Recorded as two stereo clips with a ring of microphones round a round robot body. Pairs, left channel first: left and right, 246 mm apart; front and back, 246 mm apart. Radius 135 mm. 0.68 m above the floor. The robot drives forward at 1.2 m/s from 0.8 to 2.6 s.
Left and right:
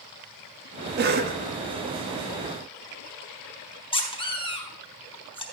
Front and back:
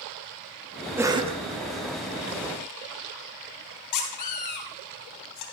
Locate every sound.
1.0 s a cough: 105° right, 1.4 m; by 1.4 s 130° right, 1.5 m
3.9 s a squeak: 20° left, 3 m